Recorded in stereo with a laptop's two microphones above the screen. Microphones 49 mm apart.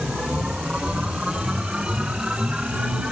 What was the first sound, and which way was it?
A machine running, 15° right (ahead or behind).